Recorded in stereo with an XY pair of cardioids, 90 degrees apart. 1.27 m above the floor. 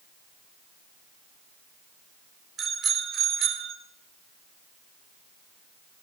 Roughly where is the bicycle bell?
Ahead right.